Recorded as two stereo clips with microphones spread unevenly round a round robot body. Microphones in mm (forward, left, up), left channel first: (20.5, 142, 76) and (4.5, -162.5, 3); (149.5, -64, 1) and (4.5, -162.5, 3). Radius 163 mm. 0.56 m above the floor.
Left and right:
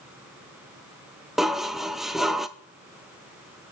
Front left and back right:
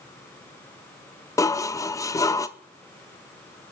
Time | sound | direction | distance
1.4 | dishes clattering | 25° right | 0.6 m